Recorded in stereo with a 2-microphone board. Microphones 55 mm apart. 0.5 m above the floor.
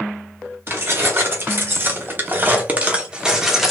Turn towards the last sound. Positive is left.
turn(degrees=0)  # may be behind; listen again after turning